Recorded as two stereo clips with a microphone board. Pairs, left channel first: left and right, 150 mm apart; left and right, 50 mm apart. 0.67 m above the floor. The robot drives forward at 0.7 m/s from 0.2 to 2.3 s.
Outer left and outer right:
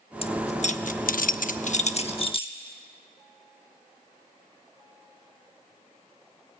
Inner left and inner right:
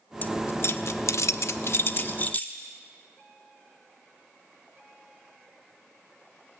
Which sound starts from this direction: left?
Keys jangling, at 0.2 s.